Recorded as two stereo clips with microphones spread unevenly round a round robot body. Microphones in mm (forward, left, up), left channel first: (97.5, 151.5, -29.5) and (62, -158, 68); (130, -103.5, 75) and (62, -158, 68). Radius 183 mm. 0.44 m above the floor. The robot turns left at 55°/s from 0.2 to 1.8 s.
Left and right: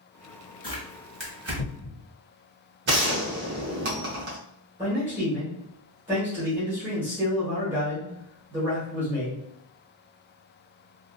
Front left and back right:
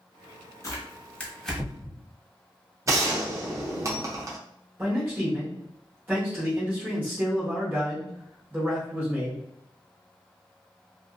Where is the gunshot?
160° right, 0.6 m.